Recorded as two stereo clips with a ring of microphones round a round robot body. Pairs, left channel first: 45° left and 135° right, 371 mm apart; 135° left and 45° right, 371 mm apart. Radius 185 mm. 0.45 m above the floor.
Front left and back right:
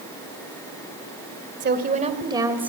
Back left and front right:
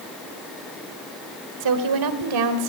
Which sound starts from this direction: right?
A woman speaking, at 1.6 s.